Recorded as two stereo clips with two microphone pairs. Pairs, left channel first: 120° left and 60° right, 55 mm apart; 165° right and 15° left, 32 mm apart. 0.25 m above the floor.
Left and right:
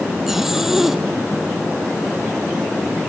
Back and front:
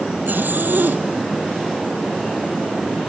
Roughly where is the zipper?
Ahead left.